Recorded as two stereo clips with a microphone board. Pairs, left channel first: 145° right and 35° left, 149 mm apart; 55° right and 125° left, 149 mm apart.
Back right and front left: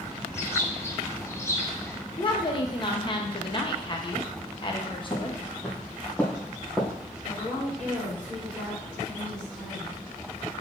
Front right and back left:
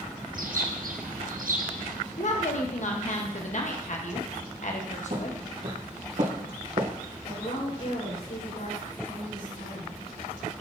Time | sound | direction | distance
0.3 | a bird | 145° left | 0.7 m
2.2 | a woman speaking | 90° right | 1.1 m
5.1 | footsteps | 150° left | 3 m
7.2 | a woman speaking | 60° right | 4 m